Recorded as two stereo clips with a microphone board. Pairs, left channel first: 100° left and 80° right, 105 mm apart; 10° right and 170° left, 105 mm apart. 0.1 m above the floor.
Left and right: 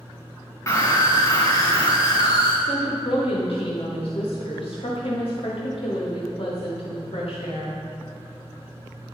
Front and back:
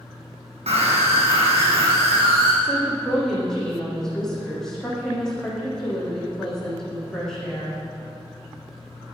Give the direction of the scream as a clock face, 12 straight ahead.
7 o'clock.